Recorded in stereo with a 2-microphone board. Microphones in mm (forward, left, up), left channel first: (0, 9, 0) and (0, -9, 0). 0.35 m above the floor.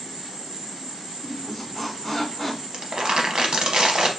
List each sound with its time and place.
0.0 s an insect: 55° right (ahead or behind), 1.2 m
1.2 s a squeak: 5° right (ahead or behind), 0.8 m
2.7 s crumpling: 55° right (ahead or behind), 0.7 m